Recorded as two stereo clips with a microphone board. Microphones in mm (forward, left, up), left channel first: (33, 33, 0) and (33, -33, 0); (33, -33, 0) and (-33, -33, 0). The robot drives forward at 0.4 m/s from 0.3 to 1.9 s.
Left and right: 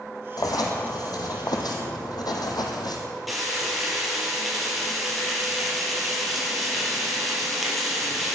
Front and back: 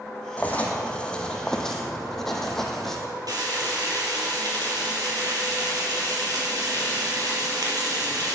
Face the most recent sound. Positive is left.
turn(degrees=180)